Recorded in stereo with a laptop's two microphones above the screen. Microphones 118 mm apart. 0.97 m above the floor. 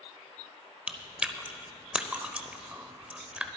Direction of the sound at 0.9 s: 10° right (ahead or behind).